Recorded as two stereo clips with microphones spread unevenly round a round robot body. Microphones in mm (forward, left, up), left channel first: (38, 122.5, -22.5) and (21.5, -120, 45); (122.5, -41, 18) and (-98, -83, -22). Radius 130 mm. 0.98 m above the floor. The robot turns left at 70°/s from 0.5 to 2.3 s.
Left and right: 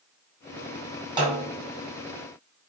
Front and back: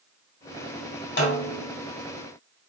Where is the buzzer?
I don't hear a buzzer.